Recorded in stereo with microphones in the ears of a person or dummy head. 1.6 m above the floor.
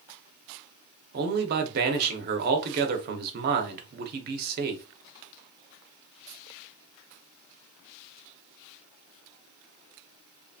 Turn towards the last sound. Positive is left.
turn(degrees=-55)  # may be behind; listen again after turning